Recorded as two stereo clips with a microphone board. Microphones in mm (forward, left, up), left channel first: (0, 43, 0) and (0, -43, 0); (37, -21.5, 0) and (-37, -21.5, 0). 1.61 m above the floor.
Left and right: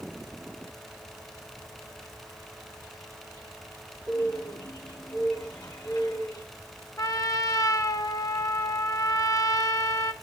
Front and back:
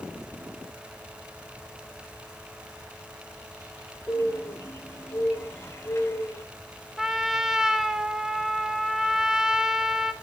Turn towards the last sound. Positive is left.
turn(degrees=100)